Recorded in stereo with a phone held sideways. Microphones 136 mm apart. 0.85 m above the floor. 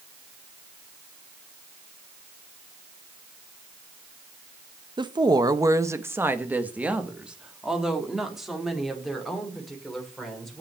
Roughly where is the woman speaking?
Right.